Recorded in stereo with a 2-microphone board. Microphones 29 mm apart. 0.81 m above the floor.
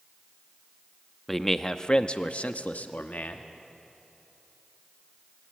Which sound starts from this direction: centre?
A man speaking, at 1.3 s.